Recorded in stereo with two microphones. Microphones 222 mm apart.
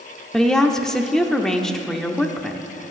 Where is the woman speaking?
Centre (ahead or behind), 0.7 m.